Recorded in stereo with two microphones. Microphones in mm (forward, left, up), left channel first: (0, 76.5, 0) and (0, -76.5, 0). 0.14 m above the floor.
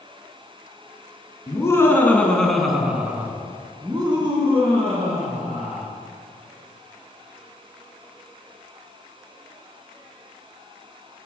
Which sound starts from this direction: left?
Laughter, at 1.5 s.